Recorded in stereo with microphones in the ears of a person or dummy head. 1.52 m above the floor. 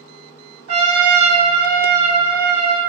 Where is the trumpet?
70° right (ahead or behind), 0.8 m.